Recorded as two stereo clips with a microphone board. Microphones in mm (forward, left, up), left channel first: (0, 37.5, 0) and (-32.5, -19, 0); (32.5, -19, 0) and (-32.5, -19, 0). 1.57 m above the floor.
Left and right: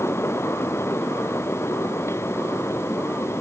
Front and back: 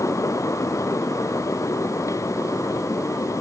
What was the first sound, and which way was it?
Only background noise.